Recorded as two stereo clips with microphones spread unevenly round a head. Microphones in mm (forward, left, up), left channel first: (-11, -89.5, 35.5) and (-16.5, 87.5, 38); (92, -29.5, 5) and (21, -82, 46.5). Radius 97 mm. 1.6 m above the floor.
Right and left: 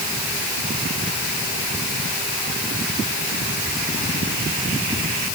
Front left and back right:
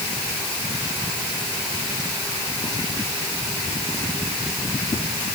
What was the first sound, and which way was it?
Only background noise.